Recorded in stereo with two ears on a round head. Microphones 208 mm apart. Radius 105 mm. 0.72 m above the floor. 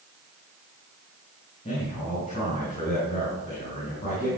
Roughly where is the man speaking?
Left.